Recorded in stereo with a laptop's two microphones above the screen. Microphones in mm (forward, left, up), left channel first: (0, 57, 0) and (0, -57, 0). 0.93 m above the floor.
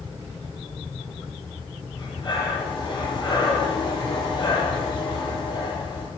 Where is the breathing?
45° left (ahead or behind), 9 m.